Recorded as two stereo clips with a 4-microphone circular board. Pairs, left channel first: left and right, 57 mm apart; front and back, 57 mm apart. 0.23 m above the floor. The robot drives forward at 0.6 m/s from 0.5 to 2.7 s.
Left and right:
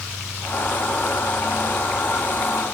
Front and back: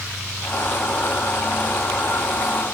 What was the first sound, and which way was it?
Only background noise.